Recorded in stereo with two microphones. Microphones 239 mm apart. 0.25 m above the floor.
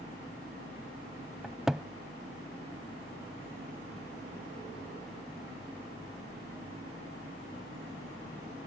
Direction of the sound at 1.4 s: Centre (ahead or behind).